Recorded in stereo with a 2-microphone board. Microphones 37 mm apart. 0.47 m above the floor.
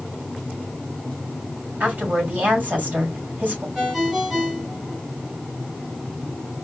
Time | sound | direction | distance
1.8 | a woman speaking | 45° right (ahead or behind) | 2.5 m
3.8 | a ringtone | 5° right (ahead or behind) | 2.5 m